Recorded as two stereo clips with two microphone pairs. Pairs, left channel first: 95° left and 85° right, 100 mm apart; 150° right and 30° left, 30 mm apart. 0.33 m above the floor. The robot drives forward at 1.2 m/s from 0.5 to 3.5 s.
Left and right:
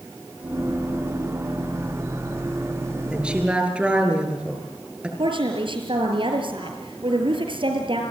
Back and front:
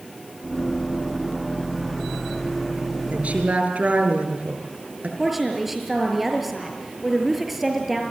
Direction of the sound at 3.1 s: 5° right.